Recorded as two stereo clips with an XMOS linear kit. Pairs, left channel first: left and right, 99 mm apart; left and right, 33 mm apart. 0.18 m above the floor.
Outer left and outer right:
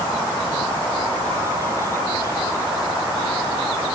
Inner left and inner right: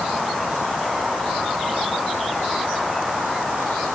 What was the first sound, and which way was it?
Only background noise.